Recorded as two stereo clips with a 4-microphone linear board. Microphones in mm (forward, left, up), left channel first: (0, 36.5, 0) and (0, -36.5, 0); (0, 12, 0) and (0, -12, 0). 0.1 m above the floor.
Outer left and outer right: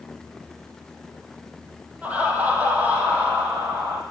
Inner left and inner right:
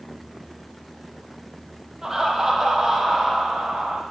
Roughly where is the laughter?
Centre.